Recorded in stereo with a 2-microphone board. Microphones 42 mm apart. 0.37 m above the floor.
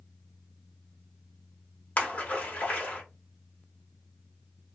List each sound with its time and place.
2.0 s a splash: 35° left (ahead or behind), 0.9 m